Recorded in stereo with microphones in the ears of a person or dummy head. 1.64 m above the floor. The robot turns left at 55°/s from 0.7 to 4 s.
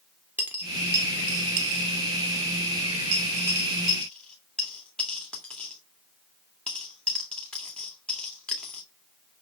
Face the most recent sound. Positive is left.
turn(degrees=10)  # may be behind; listen again after turning